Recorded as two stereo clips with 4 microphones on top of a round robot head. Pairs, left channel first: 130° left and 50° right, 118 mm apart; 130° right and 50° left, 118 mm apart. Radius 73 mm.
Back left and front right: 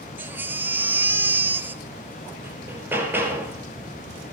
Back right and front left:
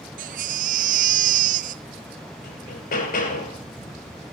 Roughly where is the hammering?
Behind right.